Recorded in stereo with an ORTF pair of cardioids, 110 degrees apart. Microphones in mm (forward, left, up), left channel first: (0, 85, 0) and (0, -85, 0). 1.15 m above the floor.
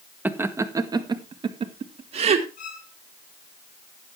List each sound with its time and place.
0.2 s laughter: 10° right, 1.5 m; by 2.5 s 40° right, 2.5 m
2.6 s a violin: 55° left, 2.5 m